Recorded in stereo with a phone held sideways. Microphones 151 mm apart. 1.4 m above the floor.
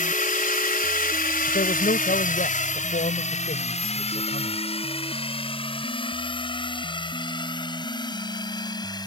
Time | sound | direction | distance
0.0 | a drone | 65° left (ahead or behind) | ?
1.5 | a man speaking | 70° left (ahead or behind) | ?